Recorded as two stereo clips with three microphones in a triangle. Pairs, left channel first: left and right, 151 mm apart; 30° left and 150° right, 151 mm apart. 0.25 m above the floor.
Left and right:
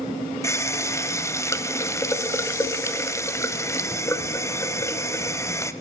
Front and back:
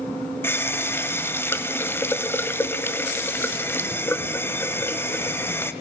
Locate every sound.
0.4 s a running tap: 70° left, 0.6 m